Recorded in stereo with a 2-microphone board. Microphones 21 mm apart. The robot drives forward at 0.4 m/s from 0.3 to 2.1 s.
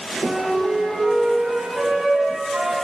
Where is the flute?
75° right (ahead or behind), 4 m; by 2.8 s 80° right, 3.5 m.